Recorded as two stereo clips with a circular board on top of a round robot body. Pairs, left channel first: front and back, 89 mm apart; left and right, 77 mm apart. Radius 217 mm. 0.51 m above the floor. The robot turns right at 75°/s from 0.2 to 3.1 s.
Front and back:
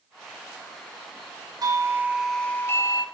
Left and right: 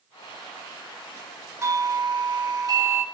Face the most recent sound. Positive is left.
turn(degrees=-30)